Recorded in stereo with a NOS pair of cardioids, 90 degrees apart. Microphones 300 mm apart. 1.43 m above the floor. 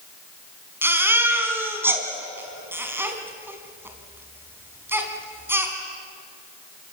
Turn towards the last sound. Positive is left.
turn(degrees=-5)